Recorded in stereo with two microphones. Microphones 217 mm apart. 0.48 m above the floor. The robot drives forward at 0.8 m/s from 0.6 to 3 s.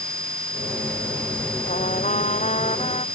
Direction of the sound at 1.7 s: 35° left (ahead or behind).